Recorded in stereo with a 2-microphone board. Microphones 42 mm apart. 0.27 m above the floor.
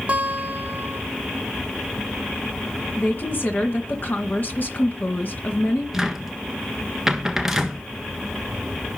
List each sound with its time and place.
0.1 s a guitar: 35° right (ahead or behind), 3 m
3.0 s a woman speaking: 50° left (ahead or behind), 2 m
5.9 s a cupboard door: 10° right (ahead or behind), 1.5 m